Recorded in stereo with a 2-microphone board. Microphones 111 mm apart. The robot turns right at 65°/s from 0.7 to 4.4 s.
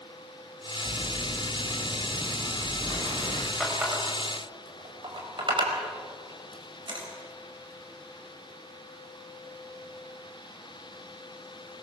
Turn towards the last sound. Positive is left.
turn(degrees=-50)  # may be behind; listen again after turning